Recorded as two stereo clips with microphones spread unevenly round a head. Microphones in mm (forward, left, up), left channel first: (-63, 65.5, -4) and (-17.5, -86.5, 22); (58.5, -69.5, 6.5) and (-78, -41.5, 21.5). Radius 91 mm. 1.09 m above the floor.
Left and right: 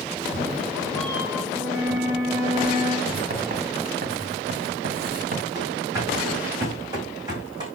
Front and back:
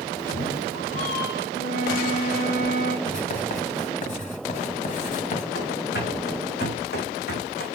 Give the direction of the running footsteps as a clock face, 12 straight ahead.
12 o'clock.